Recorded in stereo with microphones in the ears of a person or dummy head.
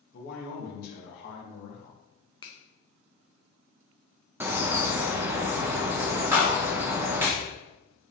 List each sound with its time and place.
0.1 s a man speaking: 50° left (ahead or behind), 1.3 m
2.4 s a finger snap: 30° left (ahead or behind), 0.8 m
4.4 s a bird: 10° right (ahead or behind), 0.6 m
6.3 s a clap: 10° right (ahead or behind), 1.6 m